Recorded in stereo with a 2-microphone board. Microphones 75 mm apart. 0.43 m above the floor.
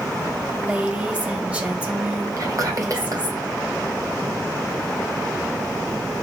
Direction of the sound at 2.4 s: 50° right (ahead or behind).